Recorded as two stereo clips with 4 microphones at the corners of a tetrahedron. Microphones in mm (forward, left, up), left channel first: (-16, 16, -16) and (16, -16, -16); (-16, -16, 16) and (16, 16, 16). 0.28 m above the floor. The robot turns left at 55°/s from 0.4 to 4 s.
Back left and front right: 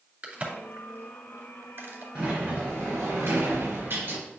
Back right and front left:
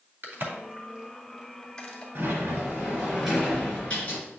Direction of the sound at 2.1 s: 25° left.